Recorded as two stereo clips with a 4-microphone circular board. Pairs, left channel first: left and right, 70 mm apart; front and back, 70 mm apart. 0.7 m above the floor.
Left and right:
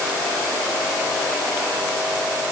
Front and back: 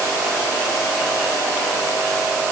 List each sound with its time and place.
Only background noise.